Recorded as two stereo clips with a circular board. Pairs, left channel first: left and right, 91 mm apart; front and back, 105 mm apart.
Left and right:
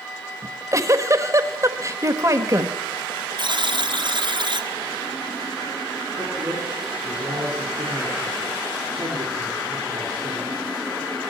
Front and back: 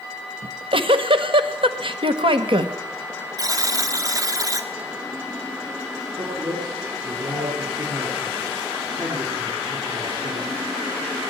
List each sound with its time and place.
0.4 s a giggle: 145° right, 1.4 m
3.4 s a buzzer: 120° right, 1.5 m
6.2 s a man speaking: 135° right, 7 m